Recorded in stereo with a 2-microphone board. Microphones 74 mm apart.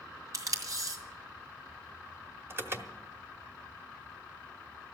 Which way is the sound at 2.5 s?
35° right (ahead or behind).